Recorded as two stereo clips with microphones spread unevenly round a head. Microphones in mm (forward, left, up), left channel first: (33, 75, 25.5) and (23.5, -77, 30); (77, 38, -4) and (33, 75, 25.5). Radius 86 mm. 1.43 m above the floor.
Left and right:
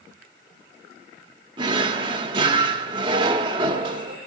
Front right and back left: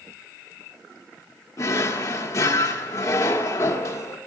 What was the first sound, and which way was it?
A drawer, 105° right.